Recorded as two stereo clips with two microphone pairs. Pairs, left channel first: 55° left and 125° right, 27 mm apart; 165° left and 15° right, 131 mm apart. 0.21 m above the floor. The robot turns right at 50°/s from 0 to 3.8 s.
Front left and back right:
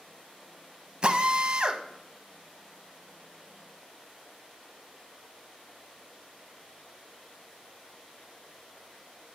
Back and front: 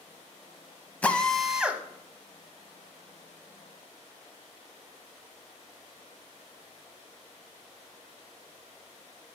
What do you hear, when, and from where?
1.0 s a drill: 125° right, 0.7 m; by 1.8 s 85° right, 0.7 m